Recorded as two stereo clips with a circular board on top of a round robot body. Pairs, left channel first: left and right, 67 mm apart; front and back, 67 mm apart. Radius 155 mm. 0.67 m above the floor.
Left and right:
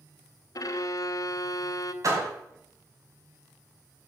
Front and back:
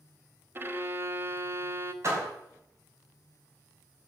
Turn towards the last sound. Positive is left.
turn(degrees=-130)